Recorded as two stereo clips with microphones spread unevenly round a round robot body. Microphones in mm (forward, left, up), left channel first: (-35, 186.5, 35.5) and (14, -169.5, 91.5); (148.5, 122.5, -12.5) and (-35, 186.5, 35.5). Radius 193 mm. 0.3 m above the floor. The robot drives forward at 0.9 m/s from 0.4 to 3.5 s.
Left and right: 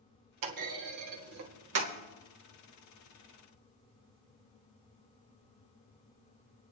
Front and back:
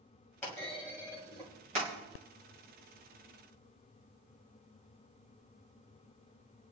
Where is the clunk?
80° right, 1.9 m; by 1.9 s 135° right, 2 m.